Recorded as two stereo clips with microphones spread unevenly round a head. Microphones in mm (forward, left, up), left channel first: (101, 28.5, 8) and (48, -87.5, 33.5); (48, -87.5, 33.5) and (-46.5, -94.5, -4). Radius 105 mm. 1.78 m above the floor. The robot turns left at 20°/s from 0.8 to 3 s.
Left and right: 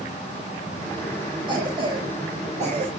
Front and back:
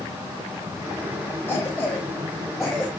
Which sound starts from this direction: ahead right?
A cough, at 1.5 s.